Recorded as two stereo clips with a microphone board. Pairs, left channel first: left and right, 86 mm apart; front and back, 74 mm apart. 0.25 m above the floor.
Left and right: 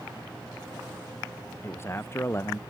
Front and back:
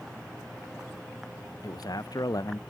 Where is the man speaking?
30° left.